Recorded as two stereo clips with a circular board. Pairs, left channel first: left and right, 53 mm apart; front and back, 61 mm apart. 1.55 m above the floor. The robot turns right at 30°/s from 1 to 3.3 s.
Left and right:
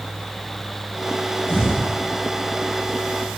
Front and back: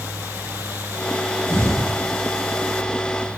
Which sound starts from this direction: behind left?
An explosion, at 1.5 s.